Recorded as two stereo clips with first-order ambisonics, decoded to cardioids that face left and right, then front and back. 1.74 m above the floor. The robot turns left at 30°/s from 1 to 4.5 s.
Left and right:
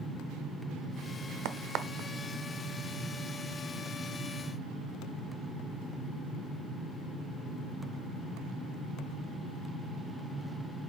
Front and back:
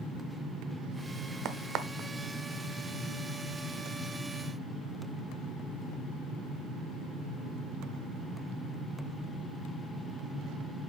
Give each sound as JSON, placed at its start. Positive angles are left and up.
{"t": 1.4, "sound": "a crack", "azimuth_deg": -130, "distance_m": 0.6}